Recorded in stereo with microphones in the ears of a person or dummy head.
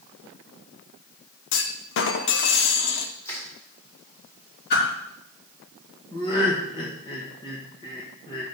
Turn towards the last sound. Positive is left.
turn(degrees=30)  # may be behind; listen again after turning